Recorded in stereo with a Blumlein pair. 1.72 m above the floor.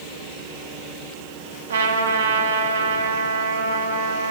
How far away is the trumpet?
About 0.5 m.